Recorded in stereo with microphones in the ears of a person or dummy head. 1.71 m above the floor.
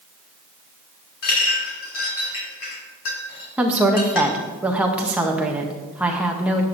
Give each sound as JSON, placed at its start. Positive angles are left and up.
{"t": 1.2, "sound": "a clink", "side_deg": 70, "distance_m": 2.5}
{"t": 3.6, "sound": "a woman speaking", "side_deg": -5, "distance_m": 0.7}